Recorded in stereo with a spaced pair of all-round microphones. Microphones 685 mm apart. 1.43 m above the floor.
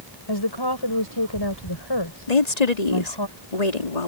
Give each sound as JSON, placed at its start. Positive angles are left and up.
{"t": 0.3, "sound": "a woman speaking", "side_deg": 40}
{"t": 2.3, "sound": "a woman speaking", "side_deg": 85}